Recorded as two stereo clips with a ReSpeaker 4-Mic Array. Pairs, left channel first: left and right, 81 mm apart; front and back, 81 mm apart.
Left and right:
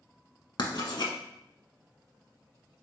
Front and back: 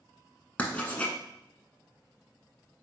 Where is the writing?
70° left, 0.7 m.